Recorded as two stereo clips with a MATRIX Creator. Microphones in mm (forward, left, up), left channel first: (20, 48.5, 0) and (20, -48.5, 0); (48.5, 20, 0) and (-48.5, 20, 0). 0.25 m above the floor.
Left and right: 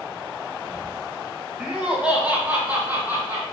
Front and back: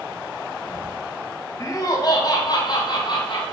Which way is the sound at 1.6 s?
10° right.